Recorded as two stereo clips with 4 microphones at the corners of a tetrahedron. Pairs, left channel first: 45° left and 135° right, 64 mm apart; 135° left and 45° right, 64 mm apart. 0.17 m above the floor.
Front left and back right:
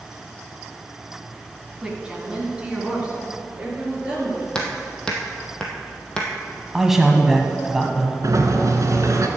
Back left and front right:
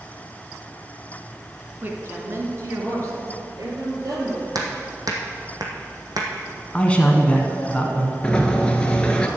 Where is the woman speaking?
65° right, 1.7 m.